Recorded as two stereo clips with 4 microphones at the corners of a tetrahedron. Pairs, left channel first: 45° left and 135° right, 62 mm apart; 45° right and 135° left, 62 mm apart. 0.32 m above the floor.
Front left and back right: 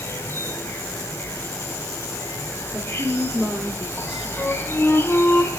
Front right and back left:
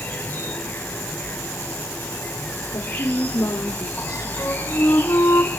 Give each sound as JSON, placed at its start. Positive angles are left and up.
{"t": 0.0, "sound": "an insect", "azimuth_deg": 10, "distance_m": 2.5}
{"t": 2.7, "sound": "a woman speaking", "azimuth_deg": -70, "distance_m": 4.0}
{"t": 4.4, "sound": "a flute", "azimuth_deg": -30, "distance_m": 3.5}